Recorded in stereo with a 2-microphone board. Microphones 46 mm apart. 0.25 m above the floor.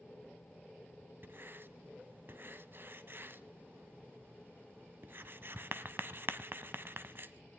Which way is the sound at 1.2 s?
50° right (ahead or behind).